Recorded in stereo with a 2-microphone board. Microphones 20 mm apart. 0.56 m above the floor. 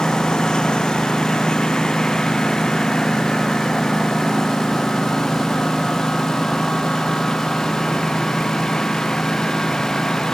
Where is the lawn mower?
50° left (ahead or behind); by 10.3 s 40° left (ahead or behind).